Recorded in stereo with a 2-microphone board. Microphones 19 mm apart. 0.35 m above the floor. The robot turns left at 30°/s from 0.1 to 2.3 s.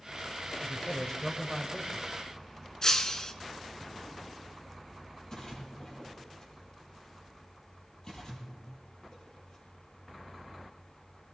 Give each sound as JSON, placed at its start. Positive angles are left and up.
{"t": 0.6, "sound": "a man speaking", "azimuth_deg": 150, "distance_m": 1.4}
{"t": 2.8, "sound": "breaking glass", "side_deg": 35, "distance_m": 1.2}
{"t": 5.3, "sound": "a splash", "side_deg": 40, "distance_m": 6.5}